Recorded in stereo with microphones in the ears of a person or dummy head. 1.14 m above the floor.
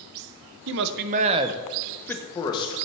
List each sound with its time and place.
0.7 s a man speaking: 65° right (ahead or behind), 0.6 m; by 2.8 s 30° left (ahead or behind), 0.9 m